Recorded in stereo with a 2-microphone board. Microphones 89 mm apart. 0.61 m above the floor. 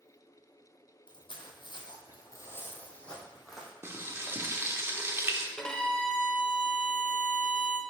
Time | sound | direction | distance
1.1 | footsteps | 65° left (ahead or behind) | 1.5 m
3.8 | frying | 30° right (ahead or behind) | 0.7 m
5.6 | a violin | 10° left (ahead or behind) | 0.7 m